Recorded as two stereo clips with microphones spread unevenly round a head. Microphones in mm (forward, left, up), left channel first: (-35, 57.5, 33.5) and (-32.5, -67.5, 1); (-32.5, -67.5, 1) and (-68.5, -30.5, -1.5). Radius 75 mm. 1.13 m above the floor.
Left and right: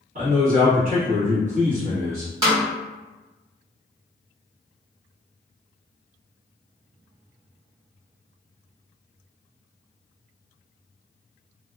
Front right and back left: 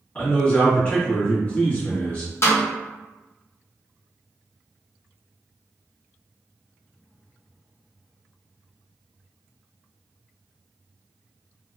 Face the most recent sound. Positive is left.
turn(degrees=-55)